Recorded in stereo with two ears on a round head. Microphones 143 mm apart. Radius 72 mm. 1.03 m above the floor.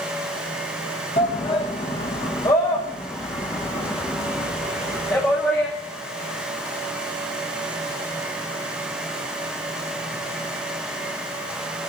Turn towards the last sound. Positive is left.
turn(degrees=10)  # may be behind; listen again after turning